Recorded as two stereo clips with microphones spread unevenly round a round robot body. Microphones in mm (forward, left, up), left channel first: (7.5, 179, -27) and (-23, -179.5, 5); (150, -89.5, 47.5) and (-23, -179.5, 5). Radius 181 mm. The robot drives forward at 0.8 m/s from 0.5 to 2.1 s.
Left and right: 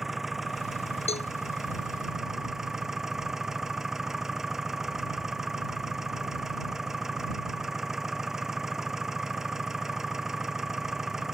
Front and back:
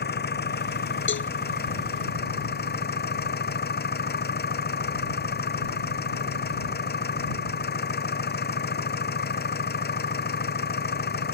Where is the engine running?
5° right.